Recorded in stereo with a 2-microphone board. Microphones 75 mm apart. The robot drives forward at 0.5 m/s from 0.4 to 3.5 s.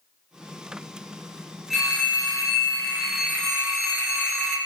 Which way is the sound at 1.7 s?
Centre (ahead or behind).